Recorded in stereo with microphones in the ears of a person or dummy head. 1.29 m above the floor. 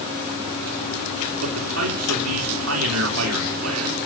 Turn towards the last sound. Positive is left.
turn(degrees=-85)